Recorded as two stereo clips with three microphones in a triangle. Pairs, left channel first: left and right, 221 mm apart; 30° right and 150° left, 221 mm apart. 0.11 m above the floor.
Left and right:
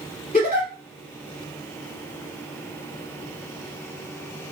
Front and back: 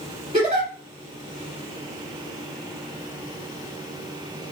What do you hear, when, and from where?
0.3 s a giggle: 110° left, 1.8 m